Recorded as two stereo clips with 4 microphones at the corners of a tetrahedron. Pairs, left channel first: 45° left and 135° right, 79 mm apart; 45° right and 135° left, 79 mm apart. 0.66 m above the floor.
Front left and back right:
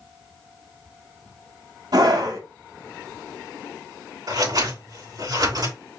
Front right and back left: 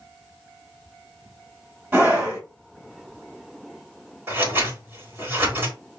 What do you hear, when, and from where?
1.9 s a scream: 160° right, 3.5 m
4.3 s scissors: 165° right, 3.5 m